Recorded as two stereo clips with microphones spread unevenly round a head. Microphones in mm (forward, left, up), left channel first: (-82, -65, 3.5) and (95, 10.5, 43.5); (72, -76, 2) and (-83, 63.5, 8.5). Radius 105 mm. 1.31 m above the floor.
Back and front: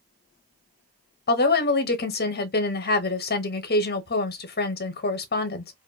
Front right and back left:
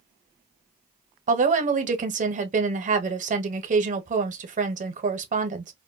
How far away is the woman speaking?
About 0.8 m.